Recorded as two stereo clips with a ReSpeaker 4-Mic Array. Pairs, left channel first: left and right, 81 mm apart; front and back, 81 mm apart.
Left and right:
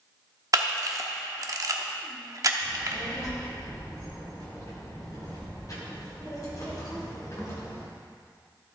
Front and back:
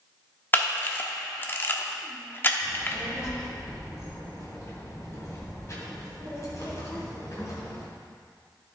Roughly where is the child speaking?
Ahead left.